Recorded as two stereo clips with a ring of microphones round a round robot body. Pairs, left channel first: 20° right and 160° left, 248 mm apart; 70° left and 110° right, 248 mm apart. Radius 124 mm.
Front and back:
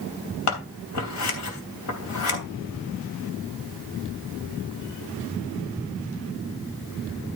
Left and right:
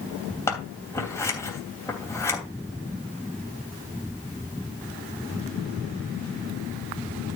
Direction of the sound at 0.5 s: 10° right.